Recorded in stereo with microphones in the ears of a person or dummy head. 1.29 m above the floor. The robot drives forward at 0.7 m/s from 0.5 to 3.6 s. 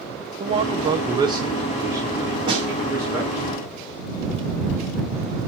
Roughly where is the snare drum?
Centre.